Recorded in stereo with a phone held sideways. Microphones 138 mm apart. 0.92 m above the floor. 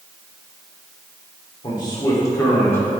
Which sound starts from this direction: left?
A man speaking, at 1.6 s.